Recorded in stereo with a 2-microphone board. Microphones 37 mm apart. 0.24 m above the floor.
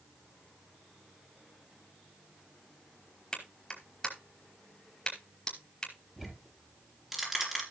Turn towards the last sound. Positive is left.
turn(degrees=-5)  # may be behind; listen again after turning